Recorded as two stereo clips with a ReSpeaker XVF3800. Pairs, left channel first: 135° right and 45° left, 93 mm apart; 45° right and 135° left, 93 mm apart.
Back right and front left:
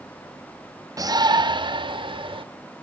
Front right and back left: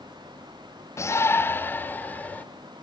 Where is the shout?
5° left, 0.9 m; by 2.4 s 25° left, 2.5 m.